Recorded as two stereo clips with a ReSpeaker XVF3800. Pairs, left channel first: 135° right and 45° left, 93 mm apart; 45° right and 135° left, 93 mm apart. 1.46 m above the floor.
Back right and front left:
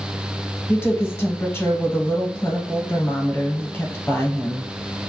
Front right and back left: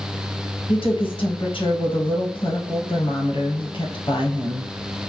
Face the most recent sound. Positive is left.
turn(degrees=-70)